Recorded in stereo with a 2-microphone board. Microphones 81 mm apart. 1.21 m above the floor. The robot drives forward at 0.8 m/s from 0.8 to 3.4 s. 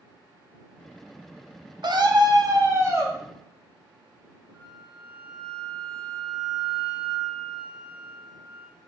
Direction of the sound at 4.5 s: 20° right (ahead or behind).